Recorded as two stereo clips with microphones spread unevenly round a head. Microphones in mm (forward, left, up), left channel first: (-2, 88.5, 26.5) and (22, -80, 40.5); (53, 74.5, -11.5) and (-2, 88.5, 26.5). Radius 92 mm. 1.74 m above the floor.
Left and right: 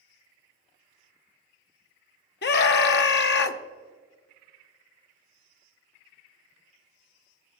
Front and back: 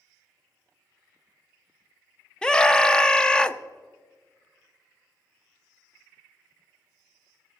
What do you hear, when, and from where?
2.4 s a scream: 70° left, 0.8 m